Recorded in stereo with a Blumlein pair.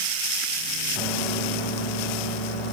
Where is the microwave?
5° right, 3.5 m.